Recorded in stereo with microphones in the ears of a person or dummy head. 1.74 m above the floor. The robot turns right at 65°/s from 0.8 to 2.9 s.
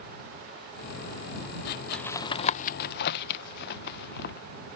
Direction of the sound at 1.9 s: 5° left (ahead or behind).